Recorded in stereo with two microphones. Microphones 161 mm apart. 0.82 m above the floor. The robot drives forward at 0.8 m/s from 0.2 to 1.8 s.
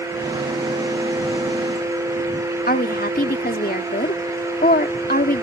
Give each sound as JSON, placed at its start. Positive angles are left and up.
{"t": 2.7, "sound": "a woman speaking", "side_deg": 70}